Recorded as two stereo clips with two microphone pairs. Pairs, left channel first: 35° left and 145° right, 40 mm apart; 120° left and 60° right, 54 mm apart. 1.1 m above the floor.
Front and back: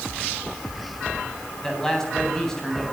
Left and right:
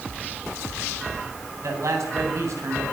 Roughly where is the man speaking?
Ahead right.